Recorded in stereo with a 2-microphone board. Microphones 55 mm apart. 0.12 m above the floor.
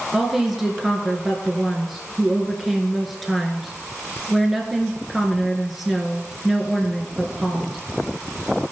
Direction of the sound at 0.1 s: Centre (ahead or behind).